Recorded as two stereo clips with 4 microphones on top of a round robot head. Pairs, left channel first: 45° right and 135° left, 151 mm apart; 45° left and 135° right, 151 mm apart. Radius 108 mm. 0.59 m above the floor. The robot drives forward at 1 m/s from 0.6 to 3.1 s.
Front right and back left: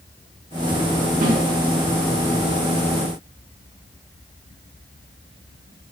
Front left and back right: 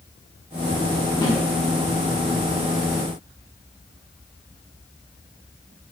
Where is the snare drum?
110° left, 2.5 m; by 1.4 s 115° left, 3 m.